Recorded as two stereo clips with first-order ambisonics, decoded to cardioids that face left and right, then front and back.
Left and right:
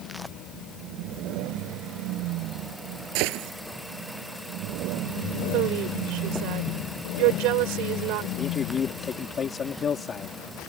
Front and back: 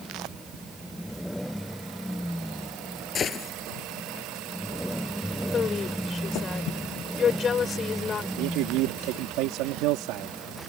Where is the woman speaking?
65° right.